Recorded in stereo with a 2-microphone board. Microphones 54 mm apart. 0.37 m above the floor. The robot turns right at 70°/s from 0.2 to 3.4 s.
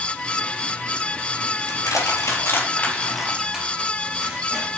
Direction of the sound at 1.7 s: 75° left (ahead or behind).